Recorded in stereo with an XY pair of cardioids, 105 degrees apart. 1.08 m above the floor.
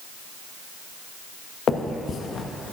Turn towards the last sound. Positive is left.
turn(degrees=50)